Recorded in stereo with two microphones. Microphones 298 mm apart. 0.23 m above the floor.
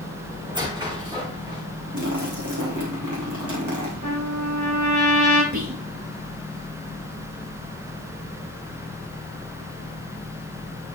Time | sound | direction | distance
0.5 | a squeak | 15° right (ahead or behind) | 6.5 m
1.9 | a splash | 70° right (ahead or behind) | 5 m
4.0 | a trumpet | 75° right (ahead or behind) | 8.5 m
5.5 | whispering | 70° right (ahead or behind) | 4 m